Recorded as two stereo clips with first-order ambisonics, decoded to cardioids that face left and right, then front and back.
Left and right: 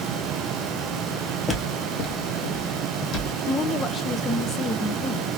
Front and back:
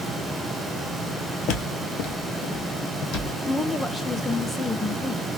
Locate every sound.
1.5 s footsteps: 15° left, 0.9 m; by 3.4 s 40° left, 1.9 m
3.5 s a woman speaking: 85° left, 0.5 m